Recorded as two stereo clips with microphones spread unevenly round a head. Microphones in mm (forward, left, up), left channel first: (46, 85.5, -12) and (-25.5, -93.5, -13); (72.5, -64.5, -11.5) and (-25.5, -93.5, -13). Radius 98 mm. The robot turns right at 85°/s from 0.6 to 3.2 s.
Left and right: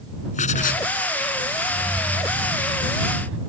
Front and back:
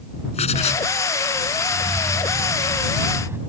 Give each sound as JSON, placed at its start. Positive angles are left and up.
{"t": 0.3, "sound": "writing", "azimuth_deg": 15}
{"t": 1.7, "sound": "keys jangling", "azimuth_deg": 135}